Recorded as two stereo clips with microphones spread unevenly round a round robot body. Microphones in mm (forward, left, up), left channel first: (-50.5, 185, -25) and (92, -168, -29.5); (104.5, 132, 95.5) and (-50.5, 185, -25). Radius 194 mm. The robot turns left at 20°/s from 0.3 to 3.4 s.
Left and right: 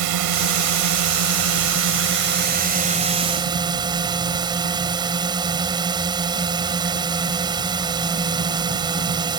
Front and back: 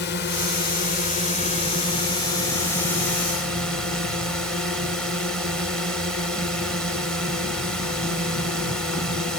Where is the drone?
80° right; by 9.4 s 145° right.